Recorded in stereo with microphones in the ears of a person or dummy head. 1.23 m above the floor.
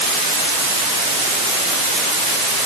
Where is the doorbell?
I don't hear a doorbell.